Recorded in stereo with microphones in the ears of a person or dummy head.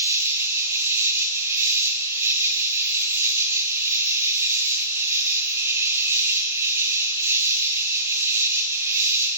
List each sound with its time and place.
0.0 s an insect: 15° right (ahead or behind), 0.8 m